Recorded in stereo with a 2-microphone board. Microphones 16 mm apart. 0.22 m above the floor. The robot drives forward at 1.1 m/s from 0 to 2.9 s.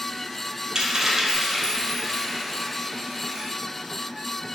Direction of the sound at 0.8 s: 50° right (ahead or behind).